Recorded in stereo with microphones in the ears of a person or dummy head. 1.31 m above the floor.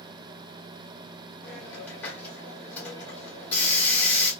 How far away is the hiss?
About 2.0 m.